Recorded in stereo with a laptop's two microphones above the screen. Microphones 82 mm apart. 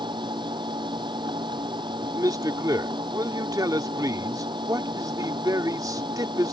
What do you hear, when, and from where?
0.0 s a machine running: 70° right (ahead or behind)
2.0 s a man speaking: 50° right (ahead or behind)